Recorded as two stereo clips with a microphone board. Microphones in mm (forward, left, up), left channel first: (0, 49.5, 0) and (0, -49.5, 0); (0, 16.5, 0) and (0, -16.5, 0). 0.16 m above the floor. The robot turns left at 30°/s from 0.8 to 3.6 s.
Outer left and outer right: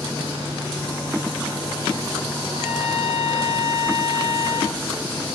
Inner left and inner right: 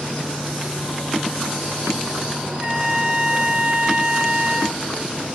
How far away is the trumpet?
About 2.0 m.